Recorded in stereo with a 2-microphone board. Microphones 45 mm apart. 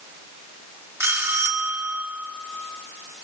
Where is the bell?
75° right (ahead or behind), 2.5 m.